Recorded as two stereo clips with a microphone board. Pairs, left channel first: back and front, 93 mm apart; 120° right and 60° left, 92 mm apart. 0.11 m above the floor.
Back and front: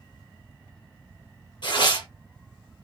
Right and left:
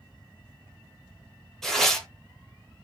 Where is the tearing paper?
155° left, 0.9 m.